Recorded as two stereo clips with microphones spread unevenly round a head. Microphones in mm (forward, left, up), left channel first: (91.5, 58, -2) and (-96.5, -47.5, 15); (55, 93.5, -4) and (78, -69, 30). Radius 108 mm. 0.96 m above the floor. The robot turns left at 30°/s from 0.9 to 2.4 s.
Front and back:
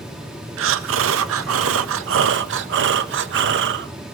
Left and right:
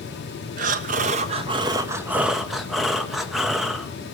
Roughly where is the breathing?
Behind right.